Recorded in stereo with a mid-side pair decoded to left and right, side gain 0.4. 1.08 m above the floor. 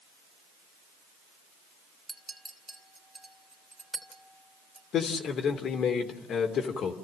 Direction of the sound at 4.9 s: 70° left.